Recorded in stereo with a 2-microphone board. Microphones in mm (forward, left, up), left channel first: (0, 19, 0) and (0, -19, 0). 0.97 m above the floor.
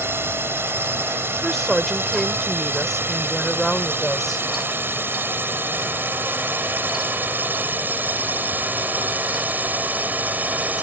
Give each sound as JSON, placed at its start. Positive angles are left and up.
{"t": 0.0, "sound": "a drone", "side_deg": -75}
{"t": 1.3, "sound": "a woman speaking", "side_deg": 5}